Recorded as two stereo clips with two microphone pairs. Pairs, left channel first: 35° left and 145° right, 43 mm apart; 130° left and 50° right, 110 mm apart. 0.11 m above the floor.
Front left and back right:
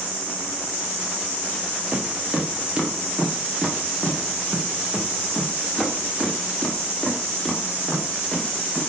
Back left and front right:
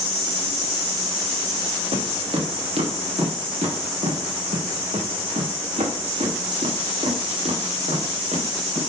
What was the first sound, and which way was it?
Footsteps, 85° right.